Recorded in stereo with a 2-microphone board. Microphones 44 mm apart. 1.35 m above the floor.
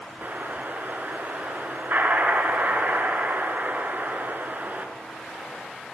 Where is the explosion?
45° right (ahead or behind), 3 m.